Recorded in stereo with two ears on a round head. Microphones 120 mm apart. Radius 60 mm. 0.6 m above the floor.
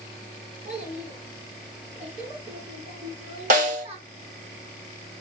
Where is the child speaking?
65° right (ahead or behind), 6 m; by 4.0 s 50° right (ahead or behind), 5 m.